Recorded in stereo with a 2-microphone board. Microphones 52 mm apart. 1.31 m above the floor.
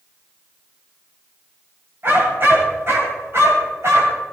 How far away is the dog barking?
About 4 m.